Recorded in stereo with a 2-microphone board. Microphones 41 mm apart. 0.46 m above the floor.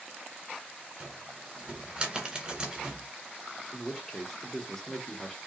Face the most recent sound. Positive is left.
turn(degrees=15)  # may be behind; listen again after turning